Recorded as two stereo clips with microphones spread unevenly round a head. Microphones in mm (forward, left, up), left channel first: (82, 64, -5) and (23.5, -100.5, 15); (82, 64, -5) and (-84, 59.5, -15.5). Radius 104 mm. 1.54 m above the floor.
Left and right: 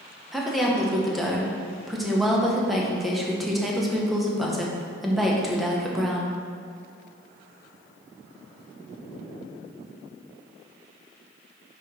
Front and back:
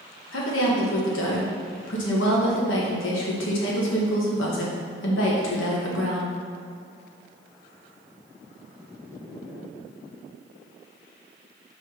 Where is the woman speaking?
20° right, 1.5 m.